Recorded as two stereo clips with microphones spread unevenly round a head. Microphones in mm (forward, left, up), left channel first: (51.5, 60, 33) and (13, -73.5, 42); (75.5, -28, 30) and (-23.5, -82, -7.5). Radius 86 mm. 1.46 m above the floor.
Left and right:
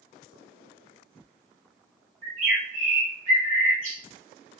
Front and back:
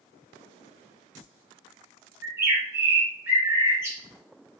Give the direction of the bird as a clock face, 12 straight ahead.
3 o'clock.